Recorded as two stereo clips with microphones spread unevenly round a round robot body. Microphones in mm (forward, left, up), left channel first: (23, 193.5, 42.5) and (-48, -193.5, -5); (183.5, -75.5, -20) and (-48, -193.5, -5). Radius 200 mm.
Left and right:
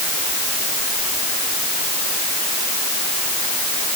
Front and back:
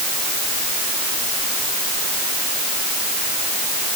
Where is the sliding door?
I don't hear a sliding door.